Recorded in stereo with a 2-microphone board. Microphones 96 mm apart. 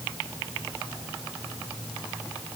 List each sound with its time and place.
Only background noise.